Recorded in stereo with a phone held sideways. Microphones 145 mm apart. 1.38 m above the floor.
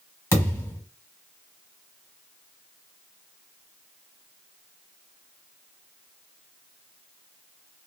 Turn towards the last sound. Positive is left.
turn(degrees=20)  # may be behind; listen again after turning